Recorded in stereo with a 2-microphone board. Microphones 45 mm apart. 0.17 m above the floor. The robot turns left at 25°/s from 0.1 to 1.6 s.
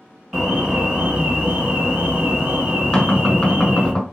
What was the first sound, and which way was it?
An alarm, 20° right.